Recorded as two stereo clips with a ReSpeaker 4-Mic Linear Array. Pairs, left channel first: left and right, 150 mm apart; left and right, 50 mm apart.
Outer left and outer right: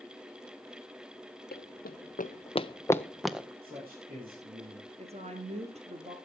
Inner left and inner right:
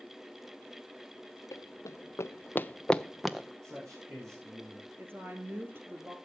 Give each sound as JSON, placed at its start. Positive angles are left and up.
{"t": 1.5, "sound": "running footsteps", "side_deg": 85, "distance_m": 1.0}
{"t": 3.6, "sound": "a man speaking", "side_deg": -75, "distance_m": 7.0}
{"t": 5.0, "sound": "a woman speaking", "side_deg": -45, "distance_m": 2.5}